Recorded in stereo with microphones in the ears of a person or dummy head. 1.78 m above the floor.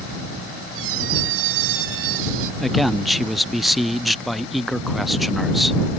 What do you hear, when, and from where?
0.8 s a squeak: 80° right
2.6 s a man speaking: 10° left (ahead or behind)